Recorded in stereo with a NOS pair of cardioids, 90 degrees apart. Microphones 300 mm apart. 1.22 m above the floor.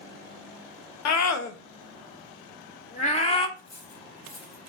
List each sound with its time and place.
1.1 s a scream: 70° left, 1.6 m; by 3.5 s 20° left, 2 m
3.6 s cutlery clinking: 65° left, 5 m